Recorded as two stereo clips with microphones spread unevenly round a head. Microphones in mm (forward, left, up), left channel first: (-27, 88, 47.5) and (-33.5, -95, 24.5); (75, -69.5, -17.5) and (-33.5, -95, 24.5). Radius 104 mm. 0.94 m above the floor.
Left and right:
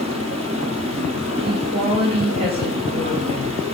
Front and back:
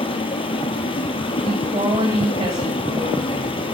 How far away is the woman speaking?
About 6 m.